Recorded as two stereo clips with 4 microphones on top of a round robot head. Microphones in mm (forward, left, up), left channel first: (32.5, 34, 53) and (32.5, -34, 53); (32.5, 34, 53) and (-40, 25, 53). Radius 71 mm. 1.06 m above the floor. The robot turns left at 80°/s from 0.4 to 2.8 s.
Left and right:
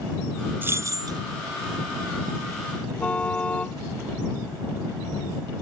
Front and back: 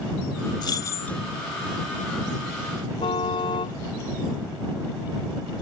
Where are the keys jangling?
30° right; by 1.2 s 75° right.